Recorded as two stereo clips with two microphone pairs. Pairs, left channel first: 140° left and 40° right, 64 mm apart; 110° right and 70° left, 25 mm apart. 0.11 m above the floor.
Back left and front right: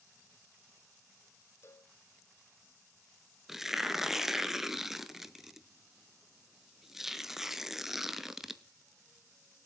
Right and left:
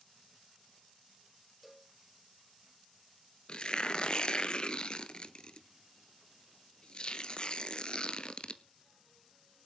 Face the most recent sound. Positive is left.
turn(degrees=-120)